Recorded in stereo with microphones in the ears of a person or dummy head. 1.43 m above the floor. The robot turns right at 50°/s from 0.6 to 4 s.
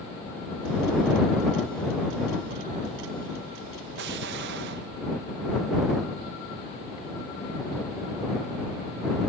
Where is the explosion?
65° right (ahead or behind).